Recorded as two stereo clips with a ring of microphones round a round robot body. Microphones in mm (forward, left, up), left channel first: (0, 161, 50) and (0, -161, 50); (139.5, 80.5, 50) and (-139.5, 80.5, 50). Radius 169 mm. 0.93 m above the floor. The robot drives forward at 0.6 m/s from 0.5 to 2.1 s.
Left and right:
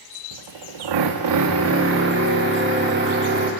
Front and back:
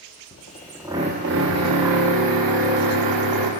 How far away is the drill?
About 0.6 m.